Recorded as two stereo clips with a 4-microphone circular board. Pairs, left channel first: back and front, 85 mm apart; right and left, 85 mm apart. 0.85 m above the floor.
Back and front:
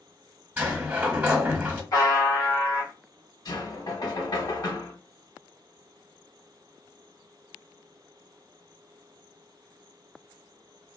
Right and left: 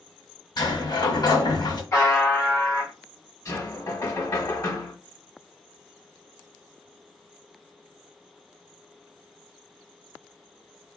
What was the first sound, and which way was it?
A sliding door, 70° right.